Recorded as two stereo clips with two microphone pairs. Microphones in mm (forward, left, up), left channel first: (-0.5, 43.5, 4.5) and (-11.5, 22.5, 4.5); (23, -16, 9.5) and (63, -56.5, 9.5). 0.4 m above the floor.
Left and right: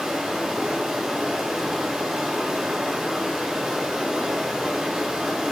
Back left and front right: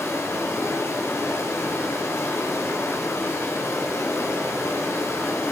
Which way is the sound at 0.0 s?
170° left.